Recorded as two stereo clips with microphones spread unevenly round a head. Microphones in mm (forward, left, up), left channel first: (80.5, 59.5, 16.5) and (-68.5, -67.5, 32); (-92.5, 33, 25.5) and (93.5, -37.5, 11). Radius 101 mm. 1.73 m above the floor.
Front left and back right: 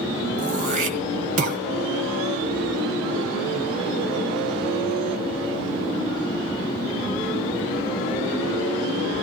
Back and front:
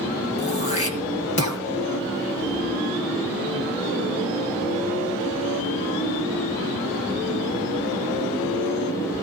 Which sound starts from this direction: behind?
Throat clearing, at 0.4 s.